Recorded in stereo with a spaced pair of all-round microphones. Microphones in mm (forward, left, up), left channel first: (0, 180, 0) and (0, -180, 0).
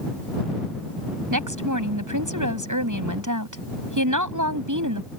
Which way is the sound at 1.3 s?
65° right (ahead or behind).